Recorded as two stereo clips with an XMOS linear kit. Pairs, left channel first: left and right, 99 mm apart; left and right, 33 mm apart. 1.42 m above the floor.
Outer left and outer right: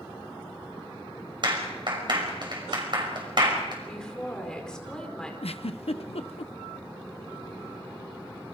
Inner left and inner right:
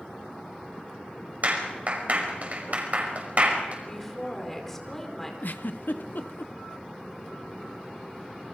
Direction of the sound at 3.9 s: 10° left (ahead or behind).